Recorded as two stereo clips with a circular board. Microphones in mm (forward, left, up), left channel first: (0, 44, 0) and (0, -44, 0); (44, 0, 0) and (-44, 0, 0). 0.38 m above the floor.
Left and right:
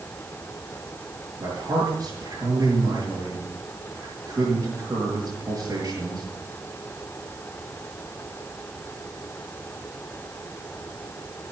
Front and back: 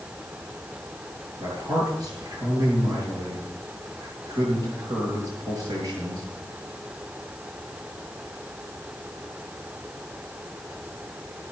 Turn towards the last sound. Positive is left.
turn(degrees=-145)